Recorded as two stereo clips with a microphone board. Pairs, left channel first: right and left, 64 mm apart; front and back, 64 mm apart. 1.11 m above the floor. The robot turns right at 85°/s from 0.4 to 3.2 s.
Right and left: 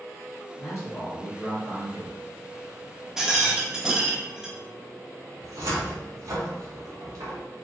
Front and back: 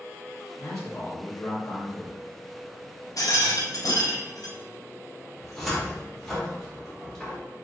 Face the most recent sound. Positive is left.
turn(degrees=85)